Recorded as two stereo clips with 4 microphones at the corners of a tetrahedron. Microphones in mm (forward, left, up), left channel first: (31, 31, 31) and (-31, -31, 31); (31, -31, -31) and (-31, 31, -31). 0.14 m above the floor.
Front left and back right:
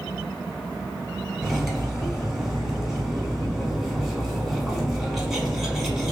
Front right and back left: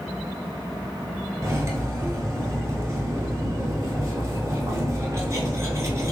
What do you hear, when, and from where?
1.4 s cutlery clinking: 140° left, 0.9 m